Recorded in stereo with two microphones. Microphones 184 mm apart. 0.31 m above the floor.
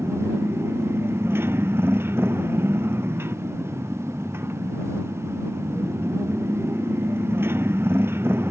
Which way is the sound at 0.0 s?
10° right (ahead or behind).